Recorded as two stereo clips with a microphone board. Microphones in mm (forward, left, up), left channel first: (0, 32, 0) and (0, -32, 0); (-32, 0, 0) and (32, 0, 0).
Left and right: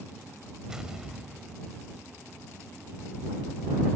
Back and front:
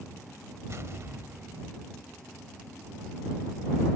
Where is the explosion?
15° right.